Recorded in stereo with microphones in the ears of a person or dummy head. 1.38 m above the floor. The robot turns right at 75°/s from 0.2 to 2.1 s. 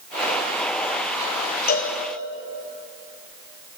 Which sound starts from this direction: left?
A cowbell, at 1.7 s.